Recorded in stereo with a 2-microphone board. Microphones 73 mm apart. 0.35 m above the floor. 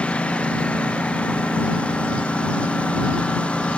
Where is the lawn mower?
15° left (ahead or behind).